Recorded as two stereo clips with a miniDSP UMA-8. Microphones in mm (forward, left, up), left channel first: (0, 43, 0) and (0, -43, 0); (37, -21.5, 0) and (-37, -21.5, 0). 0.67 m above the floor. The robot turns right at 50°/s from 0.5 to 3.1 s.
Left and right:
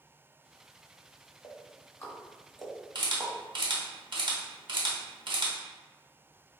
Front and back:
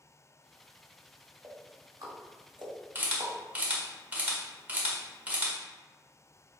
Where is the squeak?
No squeak in this recording.